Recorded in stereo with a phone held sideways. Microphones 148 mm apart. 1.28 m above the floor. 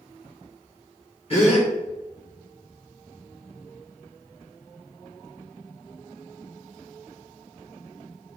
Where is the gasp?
45° left (ahead or behind), 2.5 m.